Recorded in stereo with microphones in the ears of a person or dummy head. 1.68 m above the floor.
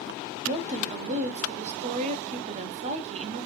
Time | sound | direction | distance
0.5 | a woman speaking | 35° right (ahead or behind) | 0.8 m